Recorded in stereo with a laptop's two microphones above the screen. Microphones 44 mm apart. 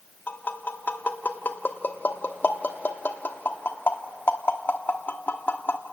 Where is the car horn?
No car horn in this recording.